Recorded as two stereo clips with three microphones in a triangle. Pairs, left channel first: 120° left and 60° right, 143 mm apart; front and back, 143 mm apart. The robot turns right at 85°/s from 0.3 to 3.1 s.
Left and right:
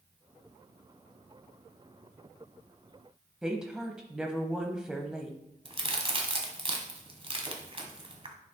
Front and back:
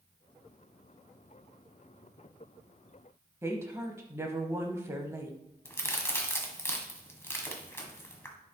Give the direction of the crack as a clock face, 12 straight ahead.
2 o'clock.